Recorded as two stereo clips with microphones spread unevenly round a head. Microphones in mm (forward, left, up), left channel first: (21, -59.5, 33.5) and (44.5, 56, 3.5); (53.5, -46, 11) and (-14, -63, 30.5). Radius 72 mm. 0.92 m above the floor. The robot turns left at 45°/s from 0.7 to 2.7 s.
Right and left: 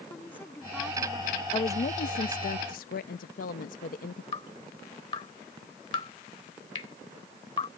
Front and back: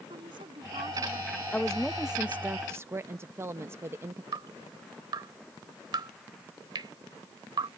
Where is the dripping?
160° right.